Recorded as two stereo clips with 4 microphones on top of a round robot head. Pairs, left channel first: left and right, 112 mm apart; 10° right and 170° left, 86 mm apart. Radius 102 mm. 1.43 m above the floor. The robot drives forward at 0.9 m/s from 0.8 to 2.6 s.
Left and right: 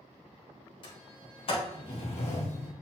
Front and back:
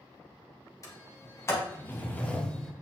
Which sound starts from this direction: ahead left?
A sliding door, at 0.8 s.